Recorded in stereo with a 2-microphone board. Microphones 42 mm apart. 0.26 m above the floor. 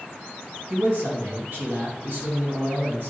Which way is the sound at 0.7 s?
55° right (ahead or behind).